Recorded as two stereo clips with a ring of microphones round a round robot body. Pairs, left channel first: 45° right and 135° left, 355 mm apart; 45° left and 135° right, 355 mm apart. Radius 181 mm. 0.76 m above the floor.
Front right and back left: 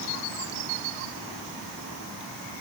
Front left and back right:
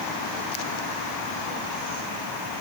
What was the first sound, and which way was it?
Only background noise.